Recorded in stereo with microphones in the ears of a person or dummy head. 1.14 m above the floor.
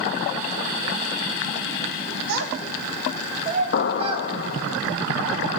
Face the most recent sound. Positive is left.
turn(degrees=60)  # may be behind; listen again after turning